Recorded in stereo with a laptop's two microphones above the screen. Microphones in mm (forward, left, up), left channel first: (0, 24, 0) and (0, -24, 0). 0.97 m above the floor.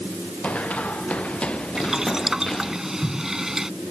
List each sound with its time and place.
0.4 s running footsteps: 30° left (ahead or behind); by 2.8 s 15° left (ahead or behind)
1.8 s boiling: 10° right (ahead or behind)